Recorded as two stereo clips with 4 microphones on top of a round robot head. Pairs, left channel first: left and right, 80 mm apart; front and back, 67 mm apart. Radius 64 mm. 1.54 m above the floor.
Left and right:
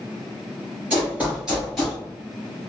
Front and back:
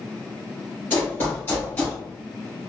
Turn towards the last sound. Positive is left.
turn(degrees=15)